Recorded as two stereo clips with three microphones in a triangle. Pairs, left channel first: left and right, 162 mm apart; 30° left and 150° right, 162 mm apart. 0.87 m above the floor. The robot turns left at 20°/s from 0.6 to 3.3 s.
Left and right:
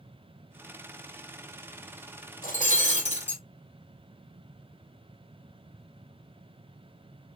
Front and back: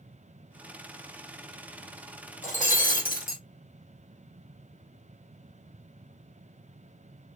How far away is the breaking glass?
About 1.9 m.